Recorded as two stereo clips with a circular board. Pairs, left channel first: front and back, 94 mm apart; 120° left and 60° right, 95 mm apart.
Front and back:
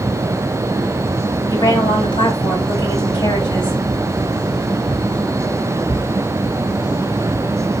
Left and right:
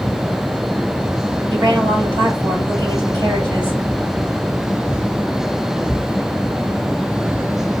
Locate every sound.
1.5 s a woman speaking: 25° right, 3 m